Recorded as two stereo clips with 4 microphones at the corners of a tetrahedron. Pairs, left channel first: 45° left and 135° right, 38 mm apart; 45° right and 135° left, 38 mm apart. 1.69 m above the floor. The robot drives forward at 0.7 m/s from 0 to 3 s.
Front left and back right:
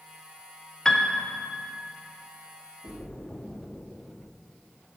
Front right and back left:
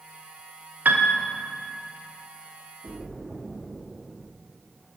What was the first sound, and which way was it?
A piano, 115° left.